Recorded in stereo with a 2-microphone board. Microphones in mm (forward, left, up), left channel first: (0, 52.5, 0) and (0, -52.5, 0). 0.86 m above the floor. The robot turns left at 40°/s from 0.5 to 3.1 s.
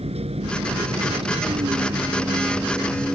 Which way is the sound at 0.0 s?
80° right.